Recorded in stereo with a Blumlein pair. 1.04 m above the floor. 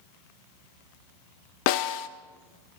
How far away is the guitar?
No guitar in this recording.